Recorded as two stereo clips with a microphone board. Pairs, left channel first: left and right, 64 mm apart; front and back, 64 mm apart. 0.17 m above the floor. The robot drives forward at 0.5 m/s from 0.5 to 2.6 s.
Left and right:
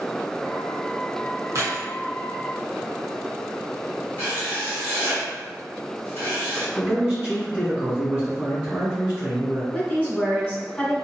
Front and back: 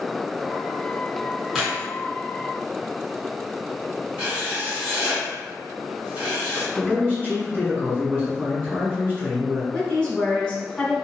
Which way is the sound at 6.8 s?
155° right.